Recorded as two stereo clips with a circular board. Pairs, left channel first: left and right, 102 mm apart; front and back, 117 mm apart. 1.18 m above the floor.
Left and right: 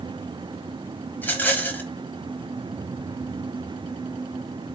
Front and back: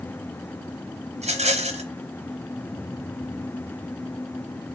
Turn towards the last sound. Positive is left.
turn(degrees=160)